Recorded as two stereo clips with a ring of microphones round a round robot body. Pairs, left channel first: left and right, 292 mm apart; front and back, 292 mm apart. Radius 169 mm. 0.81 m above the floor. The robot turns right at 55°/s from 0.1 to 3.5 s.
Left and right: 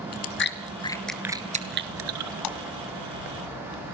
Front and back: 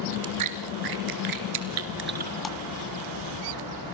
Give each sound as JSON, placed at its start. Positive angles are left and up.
{"t": 0.1, "sound": "chewing", "azimuth_deg": 125, "distance_m": 2.5}
{"t": 2.4, "sound": "a splash", "azimuth_deg": 90, "distance_m": 1.8}